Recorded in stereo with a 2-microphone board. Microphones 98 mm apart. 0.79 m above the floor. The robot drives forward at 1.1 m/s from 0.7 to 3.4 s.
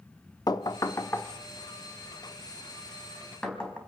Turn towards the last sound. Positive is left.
turn(degrees=10)  # may be behind; listen again after turning